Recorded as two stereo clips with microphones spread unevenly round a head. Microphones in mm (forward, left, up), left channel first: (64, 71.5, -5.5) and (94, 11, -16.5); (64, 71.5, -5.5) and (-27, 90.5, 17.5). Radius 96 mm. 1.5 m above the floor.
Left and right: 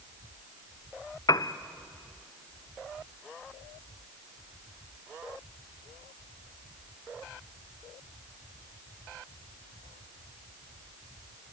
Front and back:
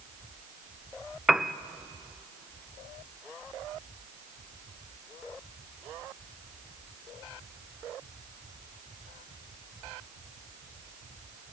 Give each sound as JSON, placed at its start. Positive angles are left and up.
{"t": 1.3, "sound": "a piano", "azimuth_deg": 80, "distance_m": 0.8}